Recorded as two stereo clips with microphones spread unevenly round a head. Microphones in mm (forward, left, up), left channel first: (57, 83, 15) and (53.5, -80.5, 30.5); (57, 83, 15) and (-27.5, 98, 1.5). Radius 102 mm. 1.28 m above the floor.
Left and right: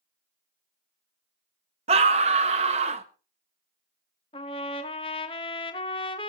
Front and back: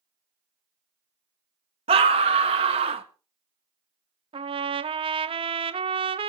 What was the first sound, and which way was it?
A scream, 155° right.